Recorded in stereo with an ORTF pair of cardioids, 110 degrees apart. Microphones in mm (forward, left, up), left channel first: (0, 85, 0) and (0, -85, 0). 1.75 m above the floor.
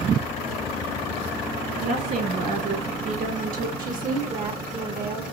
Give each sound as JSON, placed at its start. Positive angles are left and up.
{"t": 1.8, "sound": "a woman speaking", "azimuth_deg": -55, "distance_m": 2.5}
{"t": 3.8, "sound": "a woman speaking", "azimuth_deg": -55, "distance_m": 1.5}